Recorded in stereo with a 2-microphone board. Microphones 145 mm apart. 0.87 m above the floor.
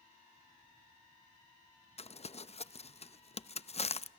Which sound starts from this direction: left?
Crumpling, at 2.0 s.